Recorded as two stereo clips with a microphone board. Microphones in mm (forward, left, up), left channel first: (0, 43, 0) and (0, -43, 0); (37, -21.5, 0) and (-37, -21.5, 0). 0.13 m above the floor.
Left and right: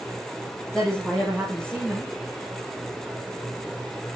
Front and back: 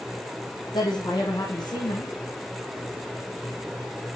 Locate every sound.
0.7 s a woman speaking: 10° left, 5.5 m